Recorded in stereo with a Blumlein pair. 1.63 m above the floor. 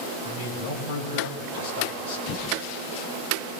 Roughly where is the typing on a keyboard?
Ahead left.